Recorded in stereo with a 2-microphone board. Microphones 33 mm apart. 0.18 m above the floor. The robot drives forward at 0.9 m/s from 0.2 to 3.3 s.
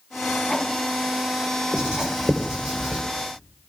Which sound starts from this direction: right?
Writing, at 1.7 s.